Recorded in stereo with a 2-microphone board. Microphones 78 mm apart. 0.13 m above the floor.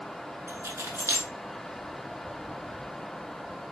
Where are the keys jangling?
40° right (ahead or behind), 0.9 m.